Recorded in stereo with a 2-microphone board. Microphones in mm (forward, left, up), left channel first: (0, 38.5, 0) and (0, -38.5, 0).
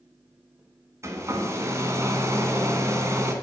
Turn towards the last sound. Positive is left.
turn(degrees=-35)  # may be behind; listen again after turning